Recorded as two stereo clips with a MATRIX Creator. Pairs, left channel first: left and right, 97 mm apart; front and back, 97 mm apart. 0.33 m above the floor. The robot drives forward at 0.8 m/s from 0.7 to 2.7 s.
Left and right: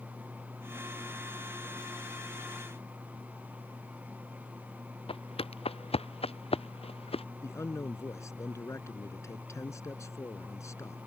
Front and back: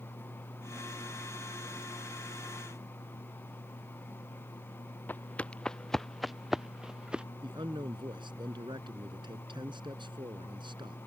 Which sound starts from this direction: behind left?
A man speaking, at 7.4 s.